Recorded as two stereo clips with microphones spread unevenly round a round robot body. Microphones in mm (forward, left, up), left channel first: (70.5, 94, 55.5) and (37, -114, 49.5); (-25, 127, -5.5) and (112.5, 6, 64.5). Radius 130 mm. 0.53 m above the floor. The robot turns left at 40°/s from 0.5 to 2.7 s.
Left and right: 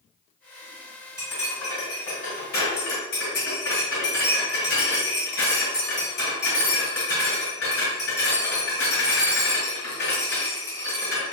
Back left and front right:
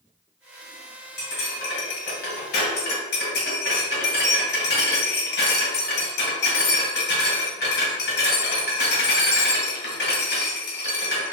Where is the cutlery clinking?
175° right, 1.8 m; by 11.3 s 125° left, 1.8 m.